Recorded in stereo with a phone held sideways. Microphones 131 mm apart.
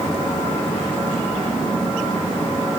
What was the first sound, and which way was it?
Only background noise.